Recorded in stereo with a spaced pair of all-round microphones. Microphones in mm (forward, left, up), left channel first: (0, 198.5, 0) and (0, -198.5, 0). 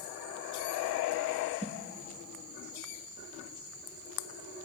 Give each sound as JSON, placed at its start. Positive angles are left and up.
{"t": 1.6, "sound": "a whoosh", "side_deg": -15, "distance_m": 1.3}